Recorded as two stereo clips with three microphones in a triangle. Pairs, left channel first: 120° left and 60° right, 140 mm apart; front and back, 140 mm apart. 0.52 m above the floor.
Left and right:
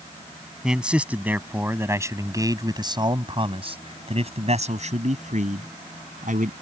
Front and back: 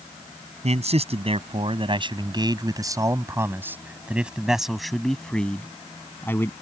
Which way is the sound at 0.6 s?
145° right.